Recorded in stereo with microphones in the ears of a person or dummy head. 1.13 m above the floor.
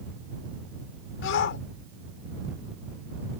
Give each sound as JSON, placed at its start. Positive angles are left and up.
{"t": 1.2, "sound": "a shout", "side_deg": 60}